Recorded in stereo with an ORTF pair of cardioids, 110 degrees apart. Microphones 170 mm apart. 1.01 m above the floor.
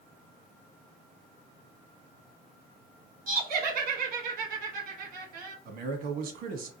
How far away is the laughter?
About 1.1 m.